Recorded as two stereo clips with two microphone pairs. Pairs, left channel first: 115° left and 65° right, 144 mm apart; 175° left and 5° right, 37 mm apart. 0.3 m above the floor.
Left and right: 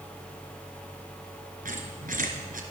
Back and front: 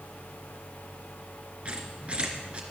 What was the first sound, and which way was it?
A squeak, 55° right.